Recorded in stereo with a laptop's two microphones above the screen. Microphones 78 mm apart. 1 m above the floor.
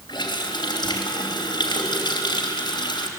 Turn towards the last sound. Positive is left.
turn(degrees=75)  # may be behind; listen again after turning